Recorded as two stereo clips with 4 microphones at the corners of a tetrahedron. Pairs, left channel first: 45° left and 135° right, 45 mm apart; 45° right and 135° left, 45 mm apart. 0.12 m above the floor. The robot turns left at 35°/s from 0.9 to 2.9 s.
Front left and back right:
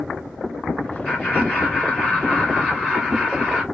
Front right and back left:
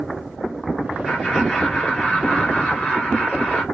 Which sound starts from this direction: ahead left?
Laughter, at 1.1 s.